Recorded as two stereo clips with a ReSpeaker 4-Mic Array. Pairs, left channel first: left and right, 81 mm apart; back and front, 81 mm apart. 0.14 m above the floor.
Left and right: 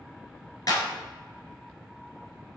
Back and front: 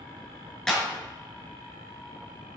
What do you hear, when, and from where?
0.7 s a clap: 100° left, 1.4 m